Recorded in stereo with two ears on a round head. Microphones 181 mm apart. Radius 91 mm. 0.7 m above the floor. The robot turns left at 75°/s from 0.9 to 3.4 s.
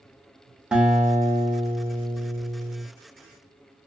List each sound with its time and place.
0.7 s a guitar: 5° right (ahead or behind), 0.6 m; by 2.8 s 10° right (ahead or behind), 0.6 m